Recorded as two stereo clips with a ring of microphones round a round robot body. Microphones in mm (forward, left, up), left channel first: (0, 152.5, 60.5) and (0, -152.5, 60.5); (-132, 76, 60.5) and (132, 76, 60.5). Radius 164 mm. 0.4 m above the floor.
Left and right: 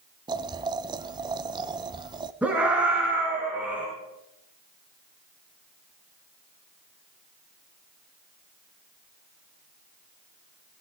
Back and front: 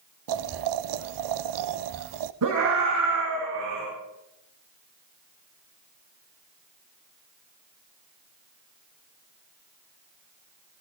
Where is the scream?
5° right, 5.5 m.